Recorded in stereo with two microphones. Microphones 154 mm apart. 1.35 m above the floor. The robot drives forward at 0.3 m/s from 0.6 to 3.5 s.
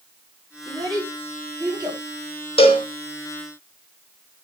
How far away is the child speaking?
About 5 m.